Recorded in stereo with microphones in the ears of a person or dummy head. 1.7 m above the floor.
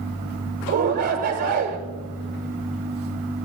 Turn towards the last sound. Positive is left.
turn(degrees=-50)  # may be behind; listen again after turning